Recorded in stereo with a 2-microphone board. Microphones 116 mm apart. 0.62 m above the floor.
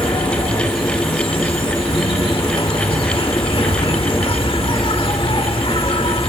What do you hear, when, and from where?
0.0 s an insect: 50° left (ahead or behind)